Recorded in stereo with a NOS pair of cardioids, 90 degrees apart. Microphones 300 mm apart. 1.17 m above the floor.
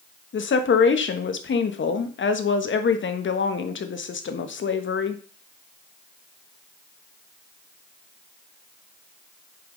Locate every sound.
0.3 s a woman speaking: 40° left, 1.3 m